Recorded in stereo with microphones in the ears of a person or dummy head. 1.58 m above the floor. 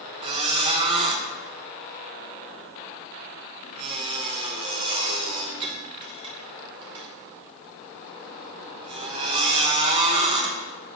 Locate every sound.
0.2 s a squeak: 30° right (ahead or behind), 0.9 m